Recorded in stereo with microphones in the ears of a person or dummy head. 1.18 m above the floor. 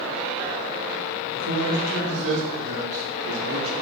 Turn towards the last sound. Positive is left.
turn(degrees=-65)  # may be behind; listen again after turning